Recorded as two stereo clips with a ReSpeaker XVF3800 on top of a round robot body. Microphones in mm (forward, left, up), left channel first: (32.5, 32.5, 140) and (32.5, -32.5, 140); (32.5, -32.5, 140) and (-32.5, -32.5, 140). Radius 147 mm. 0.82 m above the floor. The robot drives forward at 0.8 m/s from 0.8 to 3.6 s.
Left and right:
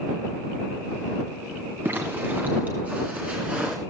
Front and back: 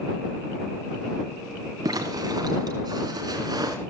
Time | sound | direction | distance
1.9 | a zipper | 150° right | 2.5 m